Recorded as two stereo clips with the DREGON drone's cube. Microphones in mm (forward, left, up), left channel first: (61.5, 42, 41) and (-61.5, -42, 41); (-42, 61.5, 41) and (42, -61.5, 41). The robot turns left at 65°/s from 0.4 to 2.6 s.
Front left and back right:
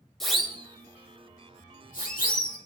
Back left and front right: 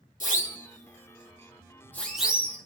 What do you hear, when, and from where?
0.2 s a siren: 120° left, 2.5 m; by 2.6 s 10° left, 4 m